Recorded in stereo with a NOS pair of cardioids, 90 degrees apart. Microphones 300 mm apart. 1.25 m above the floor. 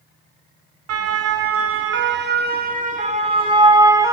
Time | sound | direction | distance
0.9 | a siren | 55° right | 2.5 m